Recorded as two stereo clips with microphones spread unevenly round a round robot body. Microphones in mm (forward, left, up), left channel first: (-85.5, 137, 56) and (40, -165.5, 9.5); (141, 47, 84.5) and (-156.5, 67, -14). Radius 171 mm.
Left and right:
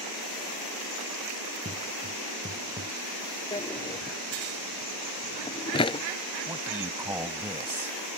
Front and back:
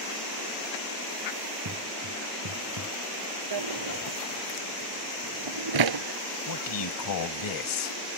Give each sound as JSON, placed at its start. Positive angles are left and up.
{"t": 1.6, "sound": "footsteps", "azimuth_deg": -140}
{"t": 3.5, "sound": "a drawer", "azimuth_deg": -175}
{"t": 6.5, "sound": "a man speaking", "azimuth_deg": 15}